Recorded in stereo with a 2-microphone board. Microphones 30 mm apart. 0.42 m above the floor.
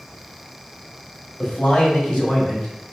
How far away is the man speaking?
About 2 m.